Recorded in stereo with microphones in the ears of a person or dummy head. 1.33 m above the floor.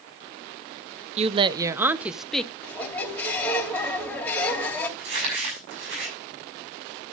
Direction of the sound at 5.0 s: 65° right (ahead or behind).